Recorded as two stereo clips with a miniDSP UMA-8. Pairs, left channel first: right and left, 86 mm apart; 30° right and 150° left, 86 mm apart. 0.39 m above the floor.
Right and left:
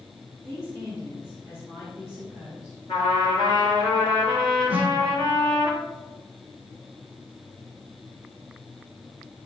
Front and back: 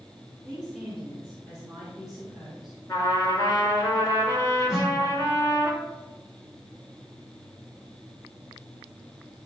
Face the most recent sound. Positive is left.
turn(degrees=-115)